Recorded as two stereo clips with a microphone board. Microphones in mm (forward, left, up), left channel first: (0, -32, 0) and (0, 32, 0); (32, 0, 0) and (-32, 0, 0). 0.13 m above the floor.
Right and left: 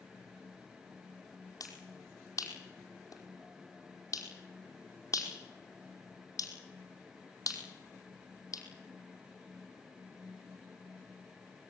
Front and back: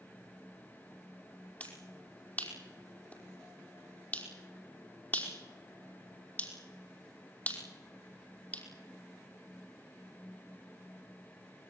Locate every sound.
1.6 s a finger snap: 65° right, 5 m